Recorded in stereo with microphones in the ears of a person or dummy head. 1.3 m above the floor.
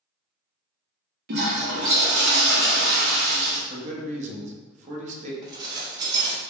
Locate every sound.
1.3 s a toilet flushing: 55° right (ahead or behind), 0.7 m
3.7 s a man speaking: 40° right (ahead or behind), 0.8 m
5.4 s dishes clattering: 25° right (ahead or behind), 0.7 m